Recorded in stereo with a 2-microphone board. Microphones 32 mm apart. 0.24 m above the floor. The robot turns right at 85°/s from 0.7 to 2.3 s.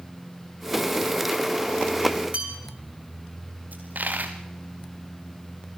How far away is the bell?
About 6.5 m.